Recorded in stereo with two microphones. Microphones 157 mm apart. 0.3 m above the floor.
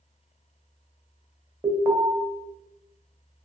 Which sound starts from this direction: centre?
An alarm, at 1.6 s.